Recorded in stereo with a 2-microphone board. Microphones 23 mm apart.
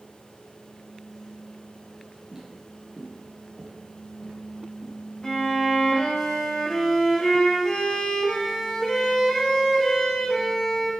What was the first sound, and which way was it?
Footsteps, 25° right (ahead or behind).